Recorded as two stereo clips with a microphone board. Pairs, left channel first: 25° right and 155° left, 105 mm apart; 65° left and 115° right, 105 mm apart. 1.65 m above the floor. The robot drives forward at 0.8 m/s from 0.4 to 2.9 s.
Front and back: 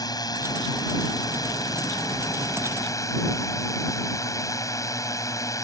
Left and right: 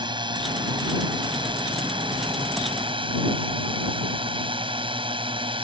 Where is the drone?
70° right; by 5.6 s 80° right.